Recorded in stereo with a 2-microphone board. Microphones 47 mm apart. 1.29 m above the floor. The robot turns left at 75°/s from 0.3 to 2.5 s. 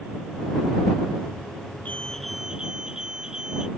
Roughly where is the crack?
I don't hear a crack.